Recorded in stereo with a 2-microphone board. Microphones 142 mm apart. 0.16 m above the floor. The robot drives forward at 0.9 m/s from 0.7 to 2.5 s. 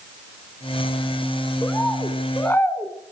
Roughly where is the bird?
Centre.